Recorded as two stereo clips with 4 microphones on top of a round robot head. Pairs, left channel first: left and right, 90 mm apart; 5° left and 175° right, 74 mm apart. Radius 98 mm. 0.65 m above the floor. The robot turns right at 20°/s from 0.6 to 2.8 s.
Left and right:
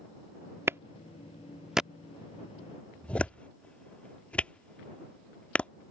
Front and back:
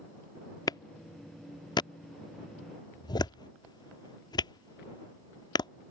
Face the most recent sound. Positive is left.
turn(degrees=15)